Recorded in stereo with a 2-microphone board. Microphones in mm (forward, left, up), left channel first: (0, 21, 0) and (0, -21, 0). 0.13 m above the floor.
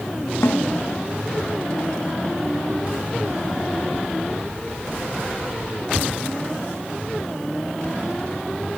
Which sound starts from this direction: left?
A snare drum, at 0.4 s.